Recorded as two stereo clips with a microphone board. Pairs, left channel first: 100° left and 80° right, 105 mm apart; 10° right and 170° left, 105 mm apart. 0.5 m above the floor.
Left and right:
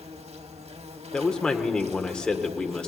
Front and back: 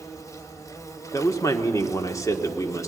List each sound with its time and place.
0.0 s an insect: 75° right, 1.1 m
1.1 s a man speaking: 25° left, 1.5 m